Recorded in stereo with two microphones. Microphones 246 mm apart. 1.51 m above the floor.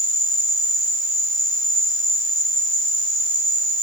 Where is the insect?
50° right (ahead or behind), 3 m.